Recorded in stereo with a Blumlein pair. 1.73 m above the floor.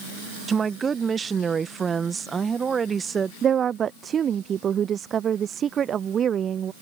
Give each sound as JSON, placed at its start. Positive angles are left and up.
{"t": 0.5, "sound": "a woman speaking", "azimuth_deg": -20}
{"t": 3.4, "sound": "a woman speaking", "azimuth_deg": -25}